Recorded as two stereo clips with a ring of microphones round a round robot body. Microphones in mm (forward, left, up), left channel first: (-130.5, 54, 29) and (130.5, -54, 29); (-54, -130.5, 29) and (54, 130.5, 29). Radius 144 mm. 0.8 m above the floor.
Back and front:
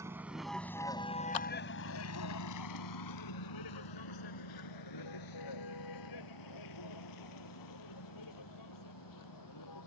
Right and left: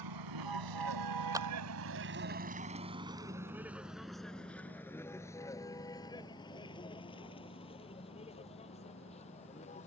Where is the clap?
145° left.